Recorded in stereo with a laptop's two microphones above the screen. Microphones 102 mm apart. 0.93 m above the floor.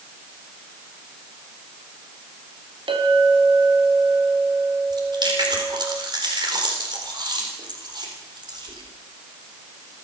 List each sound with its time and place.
2.9 s a clink: 55° right (ahead or behind), 4 m
4.9 s chewing: 45° right (ahead or behind), 4 m